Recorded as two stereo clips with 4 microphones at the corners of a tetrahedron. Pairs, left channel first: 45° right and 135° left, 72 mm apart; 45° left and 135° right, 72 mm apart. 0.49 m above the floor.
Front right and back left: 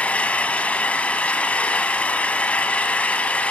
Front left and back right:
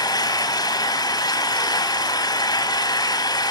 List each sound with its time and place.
0.0 s an engine running: 25° left, 2 m